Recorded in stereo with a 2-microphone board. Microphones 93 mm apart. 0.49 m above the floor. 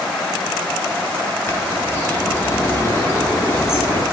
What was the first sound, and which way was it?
A bird, 25° left (ahead or behind).